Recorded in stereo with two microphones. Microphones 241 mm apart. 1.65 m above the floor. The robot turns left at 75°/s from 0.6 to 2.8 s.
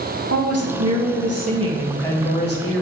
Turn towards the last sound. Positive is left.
turn(degrees=115)